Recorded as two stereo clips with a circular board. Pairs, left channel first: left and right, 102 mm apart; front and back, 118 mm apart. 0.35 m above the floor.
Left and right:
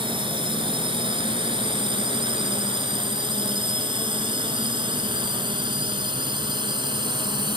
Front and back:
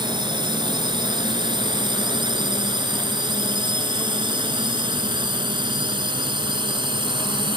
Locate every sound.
0.0 s a drone: 130° right